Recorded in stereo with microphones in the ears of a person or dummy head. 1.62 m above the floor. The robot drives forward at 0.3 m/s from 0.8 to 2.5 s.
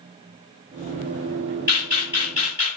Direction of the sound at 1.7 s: 10° right (ahead or behind).